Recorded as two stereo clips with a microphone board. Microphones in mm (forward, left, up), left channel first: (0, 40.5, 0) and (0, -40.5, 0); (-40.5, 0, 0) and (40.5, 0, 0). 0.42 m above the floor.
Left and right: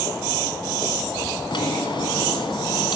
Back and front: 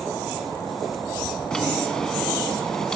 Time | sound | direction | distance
1.5 | a drawer | 100° left | 2 m